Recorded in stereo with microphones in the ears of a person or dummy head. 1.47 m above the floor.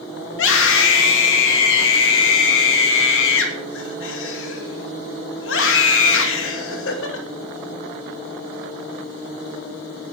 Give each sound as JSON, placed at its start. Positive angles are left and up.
{"t": 0.3, "sound": "a scream", "side_deg": 80, "distance_m": 2.5}